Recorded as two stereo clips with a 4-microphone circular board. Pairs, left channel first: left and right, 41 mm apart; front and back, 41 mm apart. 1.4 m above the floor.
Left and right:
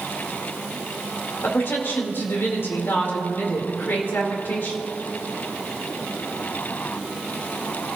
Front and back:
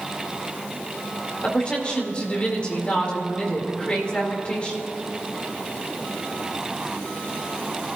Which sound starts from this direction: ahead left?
A woman speaking, at 1.4 s.